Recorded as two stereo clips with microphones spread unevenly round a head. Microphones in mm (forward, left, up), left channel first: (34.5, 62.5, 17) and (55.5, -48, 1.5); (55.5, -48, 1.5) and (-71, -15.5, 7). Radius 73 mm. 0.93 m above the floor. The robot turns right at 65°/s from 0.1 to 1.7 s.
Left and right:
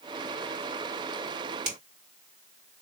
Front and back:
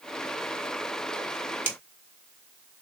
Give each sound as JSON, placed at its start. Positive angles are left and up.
{"t": 1.6, "sound": "a finger snap", "azimuth_deg": -120, "distance_m": 2.5}